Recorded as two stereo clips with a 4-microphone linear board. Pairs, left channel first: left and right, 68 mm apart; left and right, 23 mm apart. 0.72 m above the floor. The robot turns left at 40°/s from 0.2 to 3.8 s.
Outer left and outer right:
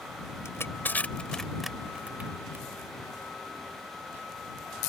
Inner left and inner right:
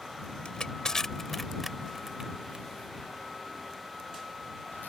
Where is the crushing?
45° left (ahead or behind); by 2.6 s 40° right (ahead or behind).